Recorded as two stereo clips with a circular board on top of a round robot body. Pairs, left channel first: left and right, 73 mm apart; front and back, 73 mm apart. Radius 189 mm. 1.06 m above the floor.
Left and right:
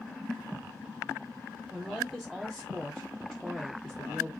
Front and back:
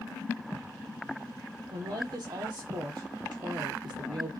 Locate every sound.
1.7 s a woman speaking: 170° right, 1.0 m